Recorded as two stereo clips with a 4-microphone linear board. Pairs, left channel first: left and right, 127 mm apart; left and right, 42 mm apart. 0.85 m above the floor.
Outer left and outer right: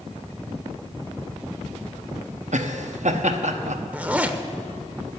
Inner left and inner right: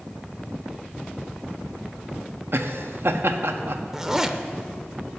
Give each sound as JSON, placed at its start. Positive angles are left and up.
{"t": 2.5, "sound": "laughter", "side_deg": -70, "distance_m": 0.9}
{"t": 3.9, "sound": "a zipper", "side_deg": -10, "distance_m": 0.6}